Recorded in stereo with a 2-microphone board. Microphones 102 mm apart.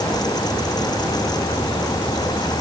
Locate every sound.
Only background noise.